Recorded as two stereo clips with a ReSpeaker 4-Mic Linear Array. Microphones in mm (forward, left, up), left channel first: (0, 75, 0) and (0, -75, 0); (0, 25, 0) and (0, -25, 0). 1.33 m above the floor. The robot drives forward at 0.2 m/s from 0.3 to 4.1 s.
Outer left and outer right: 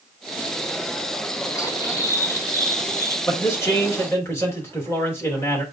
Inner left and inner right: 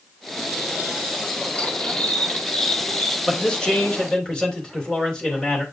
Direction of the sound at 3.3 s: 20° left (ahead or behind).